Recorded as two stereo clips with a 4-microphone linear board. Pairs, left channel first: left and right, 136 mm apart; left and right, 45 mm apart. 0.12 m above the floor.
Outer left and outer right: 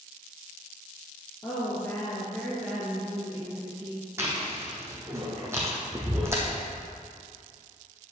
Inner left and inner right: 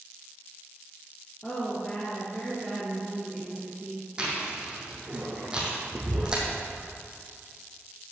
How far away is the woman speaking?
About 3 m.